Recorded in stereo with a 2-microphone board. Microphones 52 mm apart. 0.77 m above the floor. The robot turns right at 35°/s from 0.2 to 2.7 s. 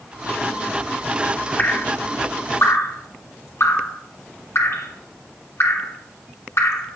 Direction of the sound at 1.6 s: 35° left (ahead or behind).